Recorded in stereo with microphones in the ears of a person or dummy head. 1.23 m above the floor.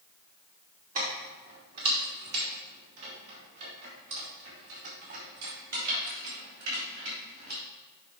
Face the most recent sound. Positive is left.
turn(degrees=-70)  # may be behind; listen again after turning